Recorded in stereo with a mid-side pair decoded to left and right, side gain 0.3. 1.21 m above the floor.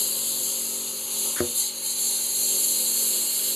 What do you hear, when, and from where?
0.0 s a lawn mower: 30° left; by 3.6 s 5° right
1.4 s a thud: 5° left